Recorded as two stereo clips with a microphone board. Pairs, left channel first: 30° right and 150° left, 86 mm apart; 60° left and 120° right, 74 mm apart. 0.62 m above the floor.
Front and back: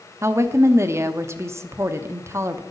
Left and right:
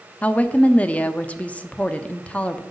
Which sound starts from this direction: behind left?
A woman speaking, at 0.2 s.